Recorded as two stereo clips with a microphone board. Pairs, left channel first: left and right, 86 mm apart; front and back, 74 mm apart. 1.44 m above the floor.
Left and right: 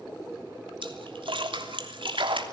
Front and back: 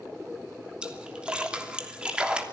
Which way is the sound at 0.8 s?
105° right.